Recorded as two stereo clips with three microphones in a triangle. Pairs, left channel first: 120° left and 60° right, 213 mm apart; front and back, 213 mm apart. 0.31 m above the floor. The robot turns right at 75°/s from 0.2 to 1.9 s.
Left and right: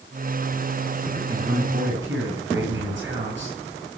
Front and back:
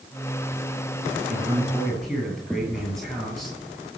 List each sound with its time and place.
1.3 s a man speaking: 135° right, 8 m; by 3.6 s 90° right, 8 m